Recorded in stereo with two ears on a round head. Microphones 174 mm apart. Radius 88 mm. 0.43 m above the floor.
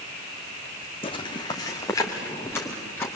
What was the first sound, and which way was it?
Footsteps, 25° left (ahead or behind).